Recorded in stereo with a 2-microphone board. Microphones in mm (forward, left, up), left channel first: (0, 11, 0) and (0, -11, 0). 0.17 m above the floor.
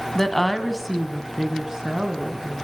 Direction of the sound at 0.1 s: 15° left (ahead or behind).